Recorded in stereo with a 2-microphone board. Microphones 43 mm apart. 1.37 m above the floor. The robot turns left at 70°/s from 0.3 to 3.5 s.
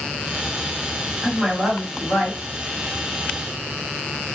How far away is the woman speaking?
About 1.8 m.